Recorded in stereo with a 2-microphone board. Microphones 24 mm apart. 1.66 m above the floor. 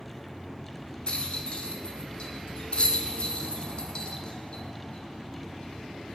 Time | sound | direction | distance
1.1 | a rattle | 40° left (ahead or behind) | 0.6 m